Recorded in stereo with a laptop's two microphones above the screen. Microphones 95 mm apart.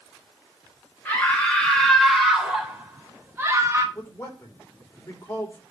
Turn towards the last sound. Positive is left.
turn(degrees=25)  # may be behind; listen again after turning